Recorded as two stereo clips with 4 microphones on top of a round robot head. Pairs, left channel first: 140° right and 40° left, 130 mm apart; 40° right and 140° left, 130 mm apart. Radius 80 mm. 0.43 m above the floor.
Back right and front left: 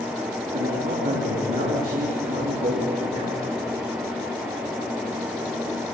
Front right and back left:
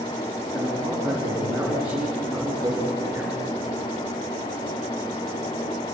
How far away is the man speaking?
About 6 m.